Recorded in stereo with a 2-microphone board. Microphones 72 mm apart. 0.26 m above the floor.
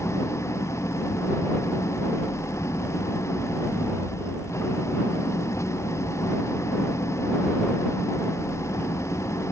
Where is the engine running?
40° left (ahead or behind).